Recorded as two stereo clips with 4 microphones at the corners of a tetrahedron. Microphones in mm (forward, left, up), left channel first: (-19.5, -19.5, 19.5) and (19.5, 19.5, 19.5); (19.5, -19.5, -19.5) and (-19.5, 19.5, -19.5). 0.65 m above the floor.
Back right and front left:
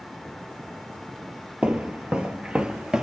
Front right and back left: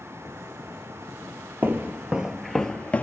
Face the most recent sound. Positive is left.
turn(degrees=-20)